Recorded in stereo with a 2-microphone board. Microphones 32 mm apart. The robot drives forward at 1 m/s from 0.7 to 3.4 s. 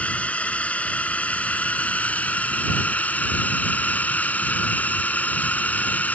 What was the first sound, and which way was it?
A drone, 45° left (ahead or behind).